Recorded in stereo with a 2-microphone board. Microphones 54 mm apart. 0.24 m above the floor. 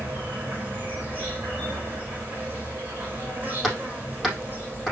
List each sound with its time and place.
0.0 s an insect: 35° right (ahead or behind), 4 m
3.6 s hammering: 5° right (ahead or behind), 4.5 m